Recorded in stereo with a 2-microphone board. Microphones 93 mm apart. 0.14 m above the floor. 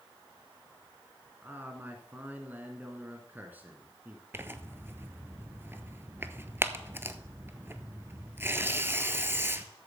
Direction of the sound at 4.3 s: 25° right (ahead or behind).